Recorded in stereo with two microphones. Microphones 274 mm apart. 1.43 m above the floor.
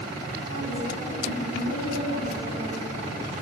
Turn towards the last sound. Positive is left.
turn(degrees=70)  # may be behind; listen again after turning